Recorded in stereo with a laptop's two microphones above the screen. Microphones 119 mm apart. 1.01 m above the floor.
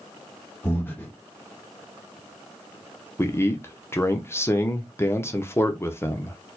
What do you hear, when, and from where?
0.6 s breathing: 15° left (ahead or behind), 1.0 m
3.2 s a man speaking: 20° left (ahead or behind), 0.6 m